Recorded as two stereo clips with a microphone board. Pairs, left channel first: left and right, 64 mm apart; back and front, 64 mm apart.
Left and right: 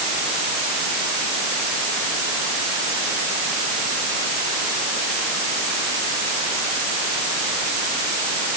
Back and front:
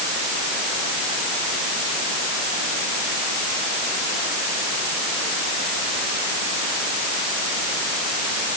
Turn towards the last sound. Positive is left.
No sound to turn to.